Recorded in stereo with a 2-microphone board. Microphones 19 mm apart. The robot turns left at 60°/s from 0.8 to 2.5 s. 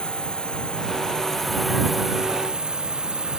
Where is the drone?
55° left; by 3.4 s 50° right.